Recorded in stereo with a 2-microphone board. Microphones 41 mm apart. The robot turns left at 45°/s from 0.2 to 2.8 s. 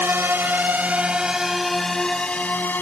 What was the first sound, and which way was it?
A drone, 60° right (ahead or behind).